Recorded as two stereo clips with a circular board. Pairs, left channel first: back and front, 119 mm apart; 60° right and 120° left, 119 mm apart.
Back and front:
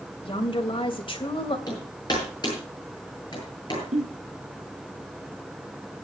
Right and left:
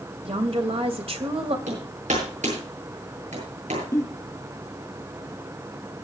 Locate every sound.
0.2 s a woman speaking: 145° left, 2.5 m
1.7 s hammering: 125° left, 9 m
3.9 s a giggle: 5° left, 3 m